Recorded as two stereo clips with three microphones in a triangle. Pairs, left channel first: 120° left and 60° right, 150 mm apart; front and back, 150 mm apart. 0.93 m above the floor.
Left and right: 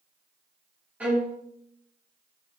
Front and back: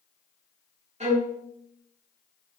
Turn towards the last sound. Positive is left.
turn(degrees=-140)